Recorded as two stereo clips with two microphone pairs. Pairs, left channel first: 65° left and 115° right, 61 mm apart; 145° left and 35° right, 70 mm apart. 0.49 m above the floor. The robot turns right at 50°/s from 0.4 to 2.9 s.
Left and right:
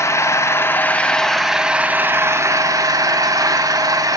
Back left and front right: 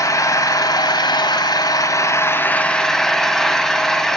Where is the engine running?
105° left, 0.8 m; by 4.2 s 130° right, 0.8 m.